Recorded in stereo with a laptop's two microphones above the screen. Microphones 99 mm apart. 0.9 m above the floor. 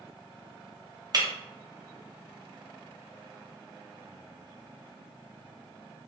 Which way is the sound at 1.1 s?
40° right (ahead or behind).